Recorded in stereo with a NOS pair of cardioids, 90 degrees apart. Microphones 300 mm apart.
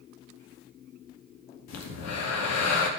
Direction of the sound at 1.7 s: 65° left.